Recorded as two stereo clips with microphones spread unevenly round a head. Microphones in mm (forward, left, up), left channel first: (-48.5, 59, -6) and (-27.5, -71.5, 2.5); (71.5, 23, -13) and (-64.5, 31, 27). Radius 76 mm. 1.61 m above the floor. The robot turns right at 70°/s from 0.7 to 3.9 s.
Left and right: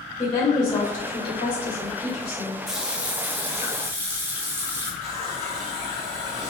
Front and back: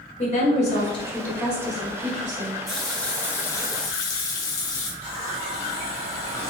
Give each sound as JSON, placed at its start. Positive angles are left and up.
{"t": 0.2, "sound": "a woman speaking", "azimuth_deg": 35, "distance_m": 1.5}
{"t": 2.7, "sound": "a running tap", "azimuth_deg": -155, "distance_m": 0.6}
{"t": 5.0, "sound": "a running tap", "azimuth_deg": -130, "distance_m": 1.7}